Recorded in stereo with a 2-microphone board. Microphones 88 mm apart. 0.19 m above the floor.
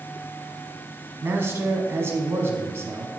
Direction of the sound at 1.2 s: 30° right (ahead or behind).